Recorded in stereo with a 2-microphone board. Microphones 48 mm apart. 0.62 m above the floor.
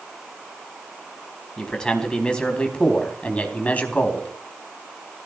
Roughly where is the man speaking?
Centre.